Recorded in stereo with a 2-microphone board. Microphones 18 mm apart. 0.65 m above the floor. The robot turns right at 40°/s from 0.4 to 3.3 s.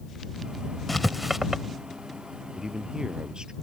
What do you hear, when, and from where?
0.9 s writing: centre (ahead or behind); by 1.6 s 25° right (ahead or behind)
2.5 s a man speaking: 150° right; by 3.5 s 120° right